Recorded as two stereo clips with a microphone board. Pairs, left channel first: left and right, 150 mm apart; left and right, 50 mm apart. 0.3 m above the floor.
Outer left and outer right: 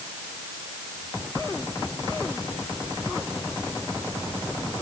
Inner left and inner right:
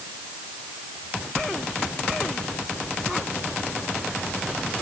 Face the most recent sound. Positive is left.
No sound to turn to.